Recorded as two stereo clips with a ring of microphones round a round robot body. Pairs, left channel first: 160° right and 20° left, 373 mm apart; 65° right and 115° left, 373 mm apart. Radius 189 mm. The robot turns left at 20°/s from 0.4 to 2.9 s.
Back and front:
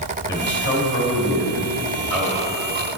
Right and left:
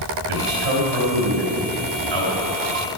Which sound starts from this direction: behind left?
A man speaking, at 0.3 s.